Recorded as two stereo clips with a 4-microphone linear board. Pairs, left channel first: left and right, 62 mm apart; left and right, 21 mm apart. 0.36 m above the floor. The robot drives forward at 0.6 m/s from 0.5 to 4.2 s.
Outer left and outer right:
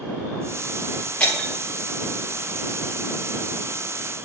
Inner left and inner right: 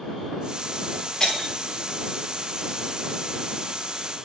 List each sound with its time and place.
1.2 s breaking glass: 20° left (ahead or behind), 3.5 m